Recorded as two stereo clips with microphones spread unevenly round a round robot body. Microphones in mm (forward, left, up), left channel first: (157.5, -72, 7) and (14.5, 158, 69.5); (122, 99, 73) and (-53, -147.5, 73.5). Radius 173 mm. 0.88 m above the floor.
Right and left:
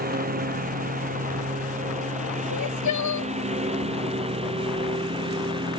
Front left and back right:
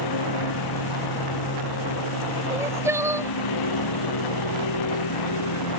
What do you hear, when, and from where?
0.0 s a lawn mower: 65° left; by 5.8 s 50° left
2.5 s crying: 45° right